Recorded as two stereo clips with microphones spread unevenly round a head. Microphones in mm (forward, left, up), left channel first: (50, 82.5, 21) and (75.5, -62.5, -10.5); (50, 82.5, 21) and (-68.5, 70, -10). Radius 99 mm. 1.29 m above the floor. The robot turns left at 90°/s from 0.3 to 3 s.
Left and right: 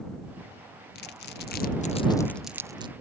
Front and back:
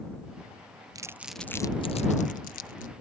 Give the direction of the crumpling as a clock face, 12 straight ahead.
7 o'clock.